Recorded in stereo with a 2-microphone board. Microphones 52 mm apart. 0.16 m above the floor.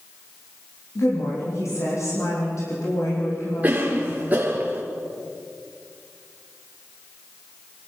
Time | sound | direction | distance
0.9 | a woman speaking | 75° left (ahead or behind) | 7.5 m
3.6 | a cough | 30° right (ahead or behind) | 2.5 m